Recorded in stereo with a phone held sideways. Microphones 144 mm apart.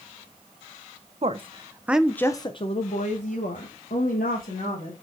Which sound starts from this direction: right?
A woman speaking, at 1.2 s.